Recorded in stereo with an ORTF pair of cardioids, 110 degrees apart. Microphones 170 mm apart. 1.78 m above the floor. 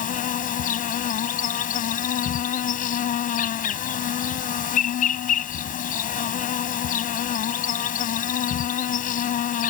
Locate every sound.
0.0 s an insect: 55° left